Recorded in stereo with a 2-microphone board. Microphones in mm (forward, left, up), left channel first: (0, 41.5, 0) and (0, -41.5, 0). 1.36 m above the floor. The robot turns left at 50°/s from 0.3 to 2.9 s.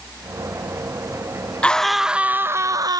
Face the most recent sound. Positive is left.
turn(degrees=-50)